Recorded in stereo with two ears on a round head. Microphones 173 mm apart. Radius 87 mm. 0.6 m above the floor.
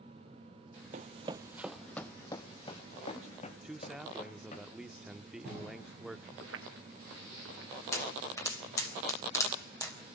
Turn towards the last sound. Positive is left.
turn(degrees=15)  # may be behind; listen again after turning